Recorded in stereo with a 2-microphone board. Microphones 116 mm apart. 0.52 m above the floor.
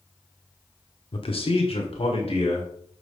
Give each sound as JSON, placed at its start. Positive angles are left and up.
{"t": 1.1, "sound": "a man speaking", "side_deg": 45, "distance_m": 1.0}